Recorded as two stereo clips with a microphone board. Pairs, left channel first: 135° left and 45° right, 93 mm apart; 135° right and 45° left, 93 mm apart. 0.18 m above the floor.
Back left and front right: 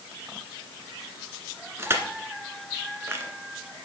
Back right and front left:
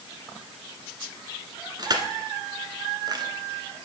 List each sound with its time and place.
1.8 s crushing: 15° left, 1.2 m